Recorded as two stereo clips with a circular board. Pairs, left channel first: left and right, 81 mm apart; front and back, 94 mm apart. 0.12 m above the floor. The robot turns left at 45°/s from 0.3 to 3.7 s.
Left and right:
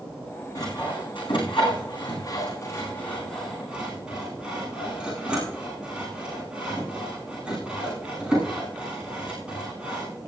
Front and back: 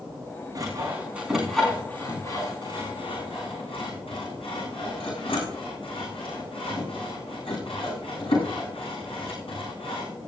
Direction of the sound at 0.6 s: 130° left.